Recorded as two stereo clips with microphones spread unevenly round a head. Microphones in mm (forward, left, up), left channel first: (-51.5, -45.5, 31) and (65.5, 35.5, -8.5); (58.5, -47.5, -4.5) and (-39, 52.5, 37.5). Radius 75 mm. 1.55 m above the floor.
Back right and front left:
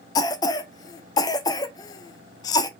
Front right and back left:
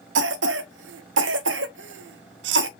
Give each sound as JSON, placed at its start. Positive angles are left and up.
{"t": 0.1, "sound": "a cough", "azimuth_deg": 145, "distance_m": 0.7}